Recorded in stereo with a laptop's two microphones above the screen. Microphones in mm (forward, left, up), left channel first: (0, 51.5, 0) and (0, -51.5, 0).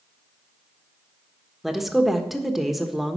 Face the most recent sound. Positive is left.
turn(degrees=0)  # may be behind; listen again after turning